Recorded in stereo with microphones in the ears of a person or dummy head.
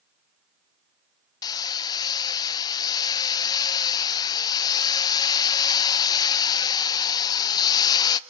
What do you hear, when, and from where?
1.4 s hammering: 20° left (ahead or behind), 0.7 m